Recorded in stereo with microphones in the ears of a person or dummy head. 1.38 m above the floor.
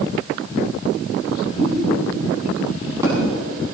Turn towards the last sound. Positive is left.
turn(degrees=-20)  # may be behind; listen again after turning